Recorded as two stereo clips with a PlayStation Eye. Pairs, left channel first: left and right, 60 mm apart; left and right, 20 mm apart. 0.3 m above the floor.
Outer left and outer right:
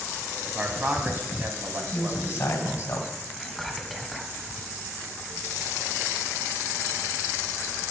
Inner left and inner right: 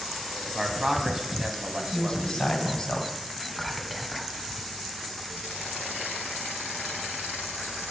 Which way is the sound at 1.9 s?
55° left (ahead or behind).